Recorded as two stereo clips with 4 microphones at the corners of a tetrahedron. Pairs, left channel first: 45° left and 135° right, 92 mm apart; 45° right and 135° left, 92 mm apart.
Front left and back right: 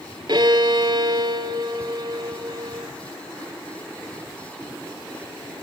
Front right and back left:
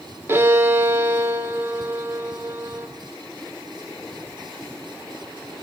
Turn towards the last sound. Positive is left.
turn(degrees=-160)